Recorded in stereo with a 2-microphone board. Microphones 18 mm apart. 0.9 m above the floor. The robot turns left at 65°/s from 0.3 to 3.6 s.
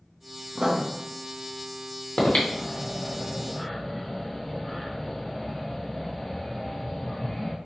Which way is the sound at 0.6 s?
40° right (ahead or behind).